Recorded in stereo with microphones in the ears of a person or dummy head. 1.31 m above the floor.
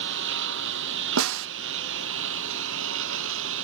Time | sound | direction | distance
0.0 | a lawn mower | 70° right (ahead or behind) | ?
1.2 | a snare drum | 75° right (ahead or behind) | ?